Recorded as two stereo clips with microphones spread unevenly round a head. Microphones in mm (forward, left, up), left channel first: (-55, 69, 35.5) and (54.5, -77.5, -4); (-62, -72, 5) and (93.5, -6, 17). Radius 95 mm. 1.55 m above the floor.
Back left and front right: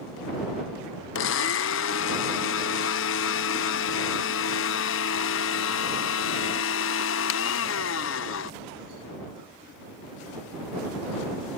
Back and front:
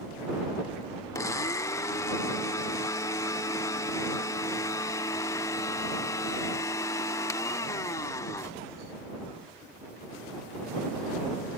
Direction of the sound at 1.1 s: 125° left.